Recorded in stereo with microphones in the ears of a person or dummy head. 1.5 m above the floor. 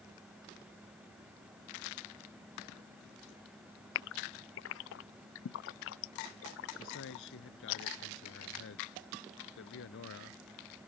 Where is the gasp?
70° left (ahead or behind).